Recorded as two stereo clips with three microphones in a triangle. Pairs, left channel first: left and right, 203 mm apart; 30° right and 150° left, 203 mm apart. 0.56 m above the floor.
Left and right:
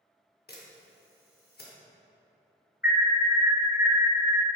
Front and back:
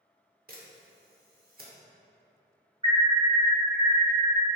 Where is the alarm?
95° left, 0.6 m.